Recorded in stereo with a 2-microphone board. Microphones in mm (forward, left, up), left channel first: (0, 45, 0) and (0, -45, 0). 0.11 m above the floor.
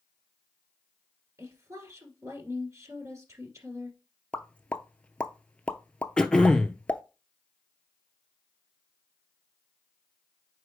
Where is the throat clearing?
10° left (ahead or behind), 0.7 m.